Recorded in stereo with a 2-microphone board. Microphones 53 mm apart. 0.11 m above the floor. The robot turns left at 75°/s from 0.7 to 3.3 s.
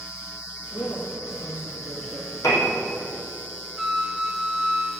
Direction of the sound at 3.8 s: 10° right (ahead or behind).